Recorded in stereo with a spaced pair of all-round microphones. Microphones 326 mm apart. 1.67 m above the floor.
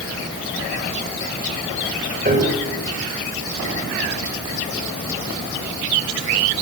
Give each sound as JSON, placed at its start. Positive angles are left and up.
{"t": 2.2, "sound": "a piano", "side_deg": -30, "distance_m": 7.0}